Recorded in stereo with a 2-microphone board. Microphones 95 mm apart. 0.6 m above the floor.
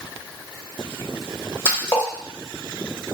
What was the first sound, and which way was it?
A splash, 25° left (ahead or behind).